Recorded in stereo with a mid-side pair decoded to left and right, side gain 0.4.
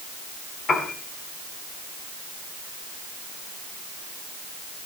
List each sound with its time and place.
0.7 s a piano: 60° left, 8 m